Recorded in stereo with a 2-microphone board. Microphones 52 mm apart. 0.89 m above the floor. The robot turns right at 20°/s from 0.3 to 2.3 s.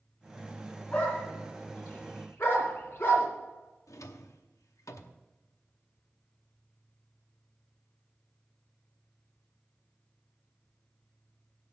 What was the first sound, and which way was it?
A dog barking, 25° left (ahead or behind).